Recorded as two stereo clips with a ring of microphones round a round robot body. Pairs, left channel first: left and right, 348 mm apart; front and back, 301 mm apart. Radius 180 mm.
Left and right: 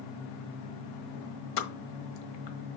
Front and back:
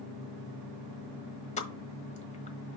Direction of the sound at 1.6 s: 70° left.